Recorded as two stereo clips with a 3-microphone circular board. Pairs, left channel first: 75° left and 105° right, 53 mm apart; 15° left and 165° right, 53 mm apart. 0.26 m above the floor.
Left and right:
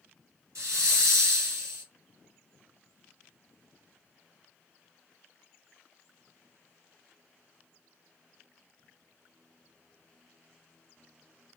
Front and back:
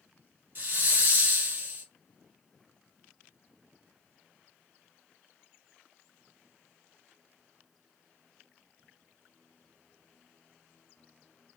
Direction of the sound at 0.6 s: 120° right.